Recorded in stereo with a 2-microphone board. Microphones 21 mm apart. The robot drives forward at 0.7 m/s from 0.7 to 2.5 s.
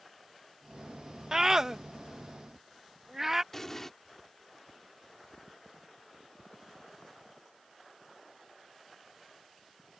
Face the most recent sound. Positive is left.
turn(degrees=15)  # may be behind; listen again after turning